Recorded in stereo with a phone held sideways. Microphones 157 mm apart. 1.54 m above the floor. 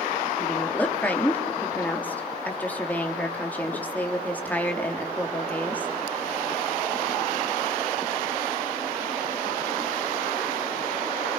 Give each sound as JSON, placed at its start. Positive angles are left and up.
{"t": 0.4, "sound": "a woman speaking", "side_deg": 10, "distance_m": 3.0}